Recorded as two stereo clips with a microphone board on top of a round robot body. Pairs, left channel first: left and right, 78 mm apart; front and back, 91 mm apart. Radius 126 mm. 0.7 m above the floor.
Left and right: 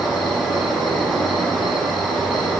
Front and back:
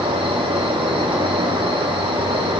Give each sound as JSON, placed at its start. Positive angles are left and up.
{"t": 0.0, "sound": "an insect", "azimuth_deg": 180, "distance_m": 4.5}